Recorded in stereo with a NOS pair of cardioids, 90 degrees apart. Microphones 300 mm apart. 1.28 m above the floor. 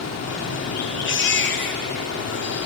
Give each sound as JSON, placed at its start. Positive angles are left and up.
{"t": 0.0, "sound": "running water", "azimuth_deg": 55, "distance_m": 3.0}
{"t": 1.1, "sound": "a baby crying", "azimuth_deg": 40, "distance_m": 1.8}